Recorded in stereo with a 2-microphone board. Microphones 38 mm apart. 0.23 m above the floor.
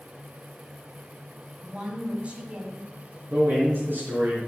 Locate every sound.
1.6 s a woman speaking: 25° right (ahead or behind), 1.9 m; by 2.9 s 40° right (ahead or behind), 1.8 m
3.3 s a man speaking: 65° right (ahead or behind), 3.5 m